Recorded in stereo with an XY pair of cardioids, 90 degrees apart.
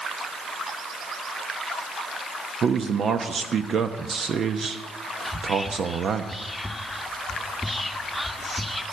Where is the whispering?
10° left, 1.3 m.